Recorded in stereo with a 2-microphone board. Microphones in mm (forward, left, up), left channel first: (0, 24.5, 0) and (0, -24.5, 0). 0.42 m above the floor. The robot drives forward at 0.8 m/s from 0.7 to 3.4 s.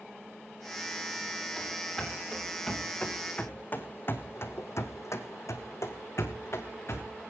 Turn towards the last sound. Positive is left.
turn(degrees=50)  # may be behind; listen again after turning